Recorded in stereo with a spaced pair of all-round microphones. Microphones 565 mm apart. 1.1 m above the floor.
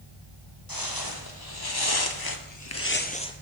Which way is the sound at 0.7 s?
40° left (ahead or behind).